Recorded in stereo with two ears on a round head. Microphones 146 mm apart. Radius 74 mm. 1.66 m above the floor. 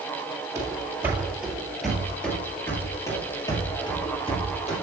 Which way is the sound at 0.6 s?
20° right (ahead or behind).